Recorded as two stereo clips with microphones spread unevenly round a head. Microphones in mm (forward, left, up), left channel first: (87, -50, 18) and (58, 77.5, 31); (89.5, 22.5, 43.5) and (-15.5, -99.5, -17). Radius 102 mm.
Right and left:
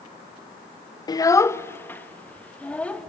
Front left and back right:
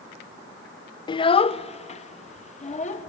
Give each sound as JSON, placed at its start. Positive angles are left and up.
{"t": 1.1, "sound": "a child speaking", "azimuth_deg": -15, "distance_m": 0.5}